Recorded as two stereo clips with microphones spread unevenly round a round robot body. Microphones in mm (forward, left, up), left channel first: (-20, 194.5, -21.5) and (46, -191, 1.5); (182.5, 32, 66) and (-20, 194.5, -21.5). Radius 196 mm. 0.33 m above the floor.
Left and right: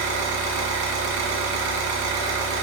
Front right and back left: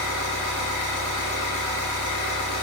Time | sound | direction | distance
0.0 | an engine running | 90° right | 1.0 m